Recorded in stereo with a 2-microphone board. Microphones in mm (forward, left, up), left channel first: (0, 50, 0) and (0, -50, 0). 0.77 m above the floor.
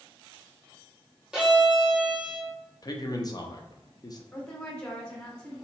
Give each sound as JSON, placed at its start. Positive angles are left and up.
{"t": 1.3, "sound": "a violin", "side_deg": -5, "distance_m": 0.8}
{"t": 2.8, "sound": "a man speaking", "side_deg": 40, "distance_m": 0.6}
{"t": 4.3, "sound": "a woman speaking", "side_deg": 10, "distance_m": 0.9}